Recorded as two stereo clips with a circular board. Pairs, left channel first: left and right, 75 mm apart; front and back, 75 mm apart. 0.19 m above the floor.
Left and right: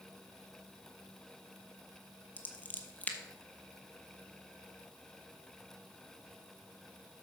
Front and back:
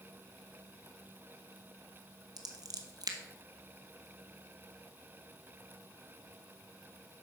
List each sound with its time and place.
2.4 s scissors: 160° left, 0.9 m